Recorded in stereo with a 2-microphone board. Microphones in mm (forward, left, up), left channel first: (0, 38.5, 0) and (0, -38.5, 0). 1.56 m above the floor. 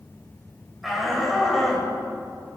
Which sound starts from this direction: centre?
A shout, at 0.8 s.